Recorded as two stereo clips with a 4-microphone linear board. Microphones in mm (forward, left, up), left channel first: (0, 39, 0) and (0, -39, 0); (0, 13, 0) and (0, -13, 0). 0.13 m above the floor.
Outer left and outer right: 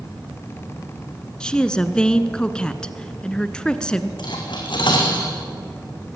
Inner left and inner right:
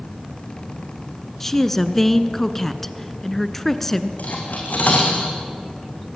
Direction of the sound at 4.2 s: 75° left (ahead or behind).